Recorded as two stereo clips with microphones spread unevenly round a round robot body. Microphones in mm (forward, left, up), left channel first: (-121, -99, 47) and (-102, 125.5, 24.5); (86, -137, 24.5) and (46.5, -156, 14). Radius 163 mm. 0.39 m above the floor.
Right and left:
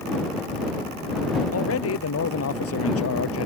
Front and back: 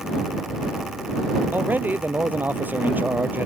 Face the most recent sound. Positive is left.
turn(degrees=-105)